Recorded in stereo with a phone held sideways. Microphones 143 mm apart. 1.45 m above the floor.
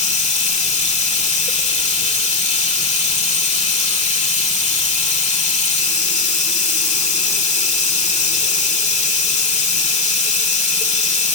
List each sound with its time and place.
0.0 s running water: 50° left (ahead or behind), 2 m